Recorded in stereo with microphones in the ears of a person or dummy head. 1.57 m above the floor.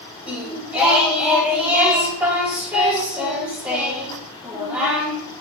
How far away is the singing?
About 2.5 m.